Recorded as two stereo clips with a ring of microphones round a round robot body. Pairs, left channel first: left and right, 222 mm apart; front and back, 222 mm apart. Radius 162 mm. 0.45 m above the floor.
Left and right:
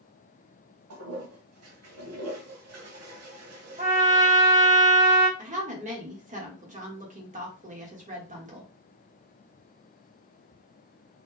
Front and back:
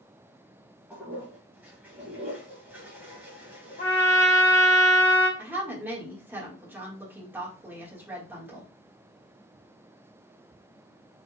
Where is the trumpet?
50° right, 2.5 m.